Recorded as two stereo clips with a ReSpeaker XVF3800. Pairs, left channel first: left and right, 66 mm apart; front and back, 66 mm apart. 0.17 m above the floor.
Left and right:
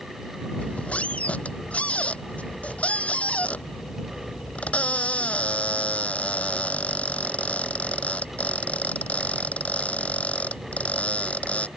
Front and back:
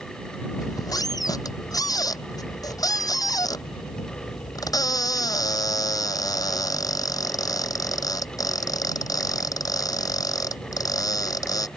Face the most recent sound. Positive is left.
turn(degrees=20)